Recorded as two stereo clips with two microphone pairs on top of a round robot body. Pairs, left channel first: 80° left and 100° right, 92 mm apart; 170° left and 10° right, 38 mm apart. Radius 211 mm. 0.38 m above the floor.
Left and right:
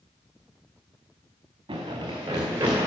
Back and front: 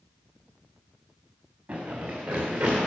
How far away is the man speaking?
No man speaking in this recording.